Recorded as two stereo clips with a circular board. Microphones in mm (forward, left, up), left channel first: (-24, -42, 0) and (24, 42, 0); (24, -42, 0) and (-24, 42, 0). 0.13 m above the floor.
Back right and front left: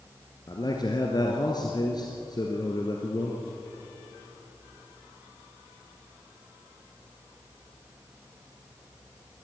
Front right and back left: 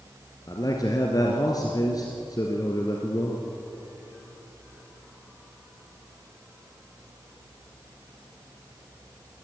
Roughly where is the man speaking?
Right.